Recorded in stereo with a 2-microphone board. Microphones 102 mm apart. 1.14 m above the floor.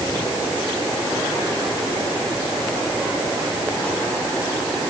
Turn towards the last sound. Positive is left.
No sound to turn to.